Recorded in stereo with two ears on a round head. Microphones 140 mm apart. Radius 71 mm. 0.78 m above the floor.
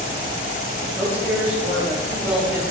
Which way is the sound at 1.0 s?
10° right (ahead or behind).